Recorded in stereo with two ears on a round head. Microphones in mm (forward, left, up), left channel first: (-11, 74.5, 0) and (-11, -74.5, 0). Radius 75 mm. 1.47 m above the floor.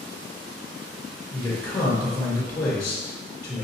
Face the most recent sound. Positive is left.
turn(degrees=20)  # may be behind; listen again after turning